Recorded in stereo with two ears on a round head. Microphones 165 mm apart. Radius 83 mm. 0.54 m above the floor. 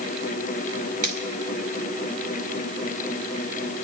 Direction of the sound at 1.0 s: 45° right (ahead or behind).